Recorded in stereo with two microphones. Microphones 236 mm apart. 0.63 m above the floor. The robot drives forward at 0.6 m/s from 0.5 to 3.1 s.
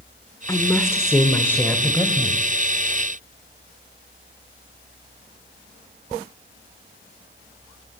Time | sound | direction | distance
0.5 | a woman speaking | 15° left (ahead or behind) | 1.4 m